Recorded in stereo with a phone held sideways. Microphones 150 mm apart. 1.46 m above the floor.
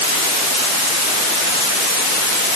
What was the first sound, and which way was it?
Only background noise.